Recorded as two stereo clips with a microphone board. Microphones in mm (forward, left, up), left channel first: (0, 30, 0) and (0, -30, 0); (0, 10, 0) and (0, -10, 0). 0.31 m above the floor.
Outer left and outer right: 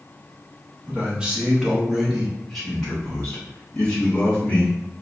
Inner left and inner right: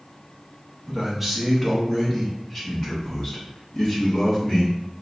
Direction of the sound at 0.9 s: 20° right (ahead or behind).